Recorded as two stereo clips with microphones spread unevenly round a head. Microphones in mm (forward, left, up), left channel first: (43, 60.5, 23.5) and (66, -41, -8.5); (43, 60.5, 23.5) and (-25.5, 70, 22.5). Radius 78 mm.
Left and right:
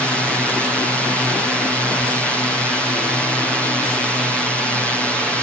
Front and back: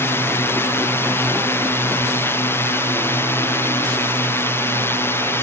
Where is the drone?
5° left.